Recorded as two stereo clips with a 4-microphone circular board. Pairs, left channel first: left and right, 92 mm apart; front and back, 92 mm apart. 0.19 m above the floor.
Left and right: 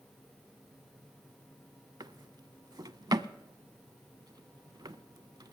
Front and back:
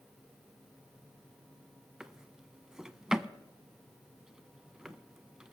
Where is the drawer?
100° right, 0.6 m.